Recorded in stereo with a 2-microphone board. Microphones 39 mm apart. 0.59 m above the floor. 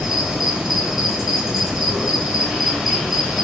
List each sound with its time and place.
0.0 s an insect: 10° right (ahead or behind), 4 m